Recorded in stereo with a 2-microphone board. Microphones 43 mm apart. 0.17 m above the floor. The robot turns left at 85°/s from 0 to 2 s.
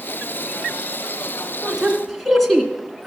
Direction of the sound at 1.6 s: 25° right (ahead or behind).